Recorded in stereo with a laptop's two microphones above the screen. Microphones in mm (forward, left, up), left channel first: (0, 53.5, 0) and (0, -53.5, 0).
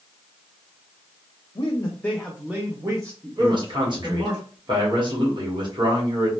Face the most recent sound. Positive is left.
turn(degrees=-45)  # may be behind; listen again after turning